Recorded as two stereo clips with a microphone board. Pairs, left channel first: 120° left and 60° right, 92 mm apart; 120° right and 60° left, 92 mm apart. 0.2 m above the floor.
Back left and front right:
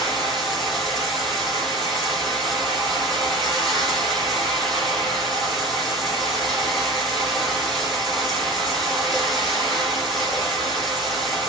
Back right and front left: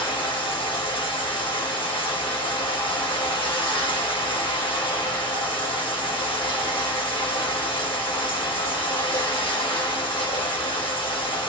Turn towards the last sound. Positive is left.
turn(degrees=-150)